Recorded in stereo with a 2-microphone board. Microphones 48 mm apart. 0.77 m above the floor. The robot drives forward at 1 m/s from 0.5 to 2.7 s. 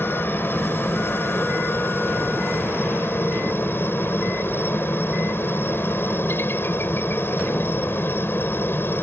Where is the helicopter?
45° left (ahead or behind); by 9.0 s 50° left (ahead or behind).